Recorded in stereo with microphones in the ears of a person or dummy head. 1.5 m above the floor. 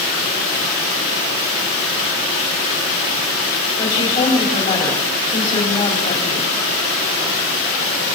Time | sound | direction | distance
3.8 | a woman speaking | 25° left (ahead or behind) | 4.5 m